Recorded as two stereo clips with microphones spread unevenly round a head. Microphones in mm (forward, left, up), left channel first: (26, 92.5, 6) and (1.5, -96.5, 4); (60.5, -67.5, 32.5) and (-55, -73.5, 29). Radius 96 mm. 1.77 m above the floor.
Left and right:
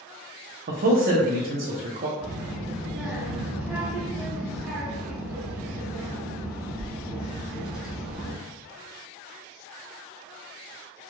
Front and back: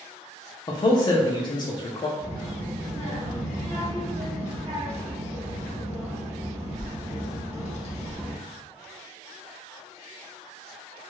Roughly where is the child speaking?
Behind.